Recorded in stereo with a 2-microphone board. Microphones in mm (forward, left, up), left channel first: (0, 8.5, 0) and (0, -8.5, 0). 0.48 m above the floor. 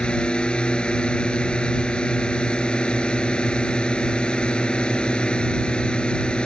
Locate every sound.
0.0 s a drone: 70° left (ahead or behind)